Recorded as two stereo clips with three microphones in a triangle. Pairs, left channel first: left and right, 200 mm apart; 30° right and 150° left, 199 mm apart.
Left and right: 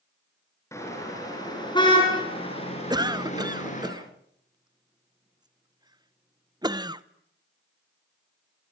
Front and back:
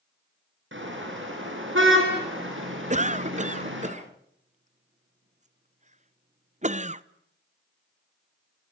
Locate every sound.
0.7 s a car horn: 165° left, 9.5 m; by 3.9 s 140° left, 9.5 m
2.9 s a cough: 160° right, 0.9 m